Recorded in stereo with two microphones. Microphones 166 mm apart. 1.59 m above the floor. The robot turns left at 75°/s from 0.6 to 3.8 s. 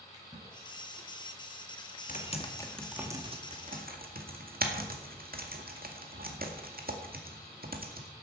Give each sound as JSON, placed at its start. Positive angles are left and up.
{"t": 0.1, "sound": "a splash", "side_deg": -25, "distance_m": 5.5}
{"t": 2.1, "sound": "typing on a keyboard", "side_deg": 50, "distance_m": 1.9}